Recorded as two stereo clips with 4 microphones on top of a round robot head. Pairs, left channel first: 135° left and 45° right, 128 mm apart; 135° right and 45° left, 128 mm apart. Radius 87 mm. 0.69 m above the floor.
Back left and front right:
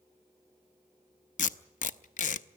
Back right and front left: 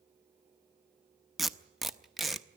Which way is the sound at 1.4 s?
135° left.